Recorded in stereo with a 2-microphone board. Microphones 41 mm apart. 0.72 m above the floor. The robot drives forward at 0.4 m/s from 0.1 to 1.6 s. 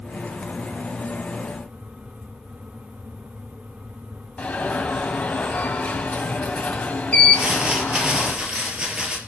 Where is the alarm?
30° left (ahead or behind), 3.5 m.